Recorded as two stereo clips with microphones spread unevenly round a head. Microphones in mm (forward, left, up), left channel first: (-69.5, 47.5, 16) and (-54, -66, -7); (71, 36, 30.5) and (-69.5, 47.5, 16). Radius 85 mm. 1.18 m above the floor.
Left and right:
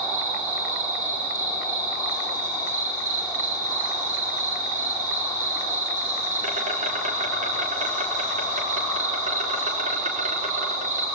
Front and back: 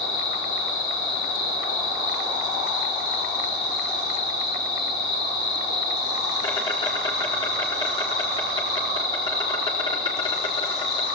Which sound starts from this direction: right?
An insect, at 0.0 s.